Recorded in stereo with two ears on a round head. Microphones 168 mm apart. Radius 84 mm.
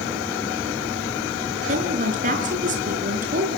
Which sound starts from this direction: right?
A woman speaking, at 1.7 s.